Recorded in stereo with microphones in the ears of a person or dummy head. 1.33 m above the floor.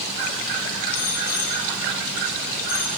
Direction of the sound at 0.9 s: 15° left (ahead or behind).